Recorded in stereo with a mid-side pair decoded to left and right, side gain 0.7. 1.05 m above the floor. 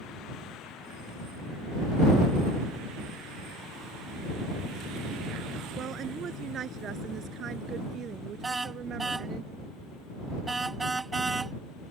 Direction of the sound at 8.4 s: 15° right.